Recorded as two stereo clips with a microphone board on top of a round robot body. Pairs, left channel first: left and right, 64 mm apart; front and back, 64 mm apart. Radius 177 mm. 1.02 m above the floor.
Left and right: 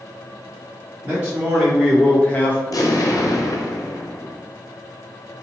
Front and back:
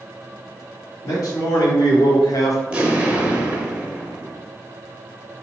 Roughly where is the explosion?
Left.